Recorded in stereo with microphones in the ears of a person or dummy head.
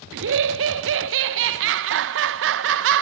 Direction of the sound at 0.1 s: 65° right (ahead or behind).